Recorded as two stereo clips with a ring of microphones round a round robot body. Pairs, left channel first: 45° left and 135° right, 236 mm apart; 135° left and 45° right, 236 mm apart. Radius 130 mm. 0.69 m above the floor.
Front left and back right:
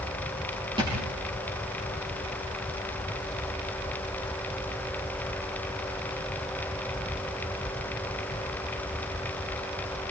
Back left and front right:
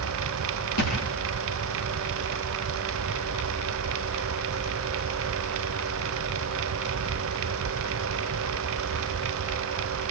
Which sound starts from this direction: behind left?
A thud, at 0.8 s.